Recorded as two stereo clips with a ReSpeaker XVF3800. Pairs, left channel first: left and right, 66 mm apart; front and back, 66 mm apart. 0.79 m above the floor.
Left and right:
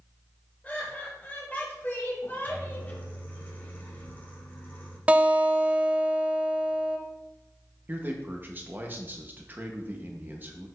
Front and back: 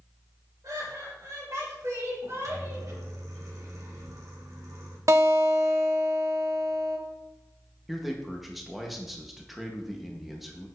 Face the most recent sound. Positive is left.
turn(degrees=-95)